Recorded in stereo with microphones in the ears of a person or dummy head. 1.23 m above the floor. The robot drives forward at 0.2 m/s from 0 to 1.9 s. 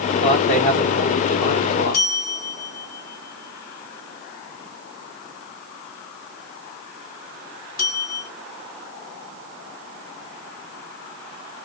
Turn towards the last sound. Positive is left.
turn(degrees=55)  # may be behind; listen again after turning